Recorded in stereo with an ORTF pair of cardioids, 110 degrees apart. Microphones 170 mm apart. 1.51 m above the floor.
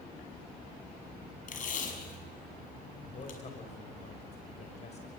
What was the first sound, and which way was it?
Tape being pulled, 50° left.